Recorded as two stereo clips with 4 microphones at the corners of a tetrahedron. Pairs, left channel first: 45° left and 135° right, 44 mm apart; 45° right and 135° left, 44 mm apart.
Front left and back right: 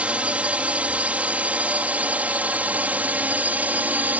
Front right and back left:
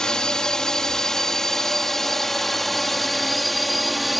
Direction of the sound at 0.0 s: 105° right.